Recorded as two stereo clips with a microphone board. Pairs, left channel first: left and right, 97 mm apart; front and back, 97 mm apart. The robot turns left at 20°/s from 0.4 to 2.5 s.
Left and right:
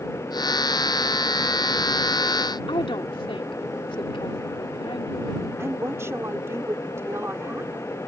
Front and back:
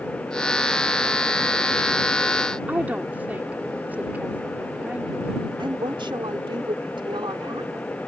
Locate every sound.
2.7 s a woman speaking: 105° left
5.6 s a woman speaking: 150° right